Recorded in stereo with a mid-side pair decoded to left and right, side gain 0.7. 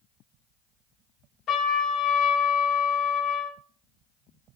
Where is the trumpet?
50° left, 1.3 m.